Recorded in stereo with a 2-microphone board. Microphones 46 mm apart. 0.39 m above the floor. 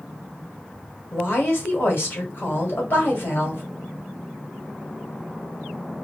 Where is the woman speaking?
55° left (ahead or behind), 1.7 m.